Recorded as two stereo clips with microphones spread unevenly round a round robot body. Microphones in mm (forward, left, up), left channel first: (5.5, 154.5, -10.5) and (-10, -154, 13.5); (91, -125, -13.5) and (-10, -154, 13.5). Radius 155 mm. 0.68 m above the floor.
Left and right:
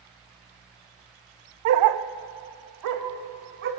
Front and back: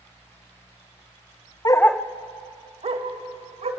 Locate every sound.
1.6 s a dog barking: 45° right, 0.9 m; by 3.7 s 150° right, 3 m